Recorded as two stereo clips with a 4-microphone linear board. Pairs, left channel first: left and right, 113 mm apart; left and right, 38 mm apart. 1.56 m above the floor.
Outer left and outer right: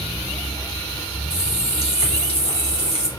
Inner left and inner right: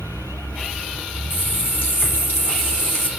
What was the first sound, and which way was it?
A running tap, 65° left (ahead or behind).